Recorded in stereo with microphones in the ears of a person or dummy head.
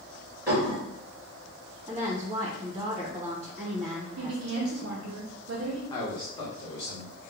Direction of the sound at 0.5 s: 5° right (ahead or behind).